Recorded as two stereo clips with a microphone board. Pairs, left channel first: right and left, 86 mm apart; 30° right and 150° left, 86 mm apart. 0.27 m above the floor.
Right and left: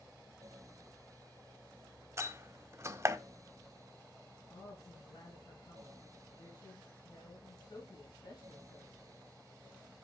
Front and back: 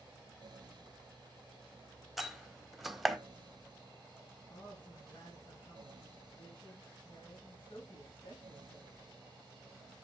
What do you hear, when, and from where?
2.2 s a door slam: 65° left, 1.1 m
4.5 s a woman speaking: 55° right, 3.5 m